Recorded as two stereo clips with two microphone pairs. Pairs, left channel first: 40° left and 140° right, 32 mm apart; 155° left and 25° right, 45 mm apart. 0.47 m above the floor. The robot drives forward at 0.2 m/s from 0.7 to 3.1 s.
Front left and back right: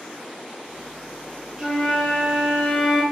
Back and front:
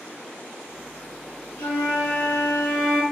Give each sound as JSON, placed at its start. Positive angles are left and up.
{"t": 1.6, "sound": "a flute", "azimuth_deg": 150, "distance_m": 1.0}